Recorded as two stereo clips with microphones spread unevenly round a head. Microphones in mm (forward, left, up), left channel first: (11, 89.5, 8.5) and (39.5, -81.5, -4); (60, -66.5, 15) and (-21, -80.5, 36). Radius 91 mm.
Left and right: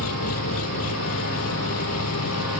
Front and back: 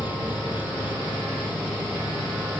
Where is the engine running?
110° left.